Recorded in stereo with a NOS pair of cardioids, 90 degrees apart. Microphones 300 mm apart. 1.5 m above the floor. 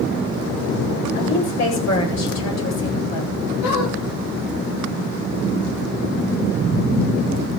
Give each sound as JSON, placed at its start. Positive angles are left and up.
{"t": 1.1, "sound": "a woman speaking", "azimuth_deg": 55, "distance_m": 8.5}
{"t": 3.6, "sound": "a squeak", "azimuth_deg": 55, "distance_m": 9.5}